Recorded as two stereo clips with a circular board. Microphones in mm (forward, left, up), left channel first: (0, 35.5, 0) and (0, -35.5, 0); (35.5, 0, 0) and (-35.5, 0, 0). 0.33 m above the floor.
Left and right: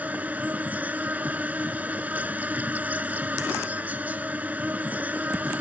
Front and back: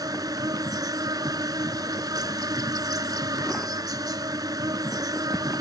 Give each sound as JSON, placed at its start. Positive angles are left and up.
{"t": 0.0, "sound": "an insect", "azimuth_deg": -155}